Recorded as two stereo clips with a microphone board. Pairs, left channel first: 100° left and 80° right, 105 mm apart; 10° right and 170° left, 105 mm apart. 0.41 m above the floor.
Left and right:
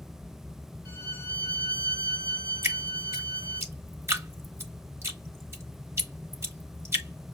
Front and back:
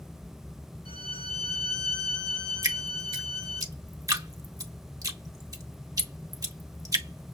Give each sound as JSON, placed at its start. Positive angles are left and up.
{"t": 0.8, "sound": "a violin", "azimuth_deg": -25, "distance_m": 5.0}
{"t": 2.6, "sound": "dripping", "azimuth_deg": -140, "distance_m": 1.0}